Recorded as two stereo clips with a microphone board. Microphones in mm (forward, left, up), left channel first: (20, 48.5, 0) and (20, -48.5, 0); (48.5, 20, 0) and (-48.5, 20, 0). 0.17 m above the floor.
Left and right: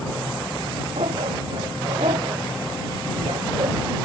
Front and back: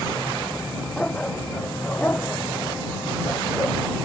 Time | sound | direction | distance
1.0 | a dog barking | 80° right | ?